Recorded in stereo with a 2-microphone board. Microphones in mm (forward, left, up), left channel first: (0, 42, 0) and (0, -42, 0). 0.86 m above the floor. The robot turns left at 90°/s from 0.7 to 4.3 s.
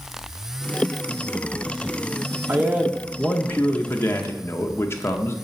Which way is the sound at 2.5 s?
130° right.